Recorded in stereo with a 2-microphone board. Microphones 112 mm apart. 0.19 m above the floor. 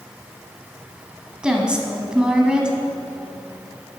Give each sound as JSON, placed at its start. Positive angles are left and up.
{"t": 1.4, "sound": "a woman speaking", "side_deg": -10, "distance_m": 1.0}